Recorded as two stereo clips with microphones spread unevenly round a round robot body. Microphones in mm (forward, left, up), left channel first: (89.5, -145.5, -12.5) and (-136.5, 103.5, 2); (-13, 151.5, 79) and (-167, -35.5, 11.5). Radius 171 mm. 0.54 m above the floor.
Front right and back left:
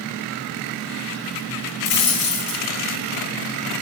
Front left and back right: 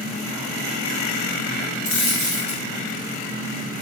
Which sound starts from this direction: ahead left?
A dropped coin, at 1.9 s.